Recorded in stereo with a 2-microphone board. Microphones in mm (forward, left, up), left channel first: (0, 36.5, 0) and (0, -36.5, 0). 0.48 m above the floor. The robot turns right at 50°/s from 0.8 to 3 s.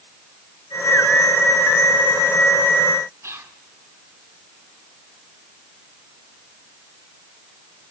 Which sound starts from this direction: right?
Whispering, at 3.2 s.